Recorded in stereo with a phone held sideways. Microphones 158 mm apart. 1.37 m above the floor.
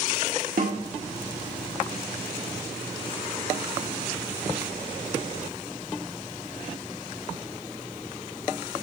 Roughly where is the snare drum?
Right.